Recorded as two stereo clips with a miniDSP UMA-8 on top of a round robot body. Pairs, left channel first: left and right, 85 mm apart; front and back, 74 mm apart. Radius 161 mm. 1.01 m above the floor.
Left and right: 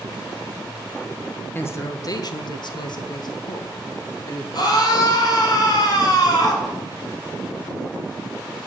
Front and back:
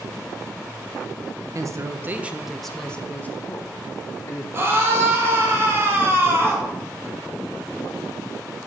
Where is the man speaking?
150° left, 1.1 m; by 4.4 s 50° left, 2.5 m.